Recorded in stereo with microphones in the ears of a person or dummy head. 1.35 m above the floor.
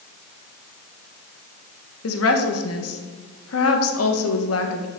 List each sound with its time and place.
2.0 s a woman speaking: 80° left, 1.5 m